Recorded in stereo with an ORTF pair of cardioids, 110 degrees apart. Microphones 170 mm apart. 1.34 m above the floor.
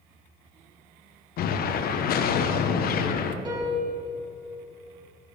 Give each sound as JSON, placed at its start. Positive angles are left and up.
{"t": 1.4, "sound": "an explosion", "azimuth_deg": 65, "distance_m": 1.0}
{"t": 3.5, "sound": "a piano", "azimuth_deg": -25, "distance_m": 4.0}